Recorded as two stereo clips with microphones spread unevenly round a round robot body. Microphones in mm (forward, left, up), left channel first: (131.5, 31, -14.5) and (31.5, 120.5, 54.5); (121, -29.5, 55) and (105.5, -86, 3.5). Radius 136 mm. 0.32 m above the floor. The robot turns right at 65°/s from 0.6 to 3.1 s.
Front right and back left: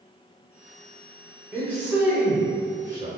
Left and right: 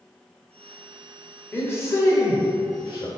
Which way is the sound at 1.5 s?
70° right.